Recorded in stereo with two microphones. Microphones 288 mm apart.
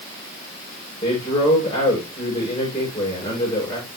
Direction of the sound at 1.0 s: 15° left (ahead or behind).